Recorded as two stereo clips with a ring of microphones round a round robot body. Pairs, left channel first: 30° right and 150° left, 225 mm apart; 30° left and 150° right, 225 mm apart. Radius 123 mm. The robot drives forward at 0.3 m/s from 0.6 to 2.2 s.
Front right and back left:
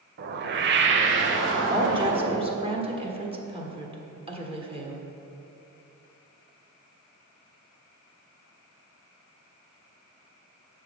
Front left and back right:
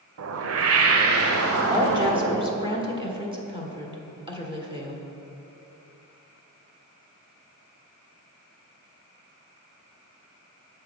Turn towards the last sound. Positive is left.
turn(degrees=175)